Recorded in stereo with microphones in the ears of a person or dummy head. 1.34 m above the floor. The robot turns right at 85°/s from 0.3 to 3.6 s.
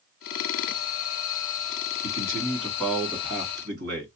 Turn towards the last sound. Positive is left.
turn(degrees=-125)